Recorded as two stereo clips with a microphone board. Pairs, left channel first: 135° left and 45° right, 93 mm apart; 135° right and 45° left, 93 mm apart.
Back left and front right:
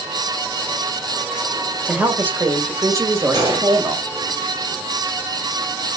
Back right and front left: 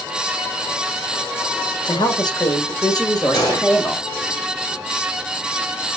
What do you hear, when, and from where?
1.9 s a woman speaking: 120° right, 1.8 m; by 4.0 s 85° right, 2.5 m
3.3 s a gunshot: 90° right, 4 m